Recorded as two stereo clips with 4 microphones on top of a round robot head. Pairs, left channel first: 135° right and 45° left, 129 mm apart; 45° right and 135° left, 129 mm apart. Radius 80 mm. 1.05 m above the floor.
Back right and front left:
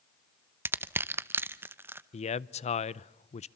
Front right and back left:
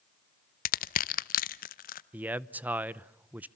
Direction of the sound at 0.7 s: 30° right.